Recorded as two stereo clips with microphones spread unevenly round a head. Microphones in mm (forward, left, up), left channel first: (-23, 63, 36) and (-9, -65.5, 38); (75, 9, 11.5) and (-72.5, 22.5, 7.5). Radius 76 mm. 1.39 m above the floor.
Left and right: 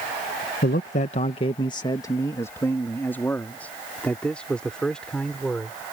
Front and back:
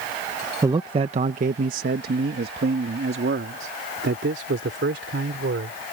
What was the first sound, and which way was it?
A man speaking, 105° left.